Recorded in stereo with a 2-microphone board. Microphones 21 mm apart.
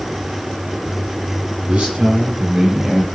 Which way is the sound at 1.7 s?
60° right (ahead or behind).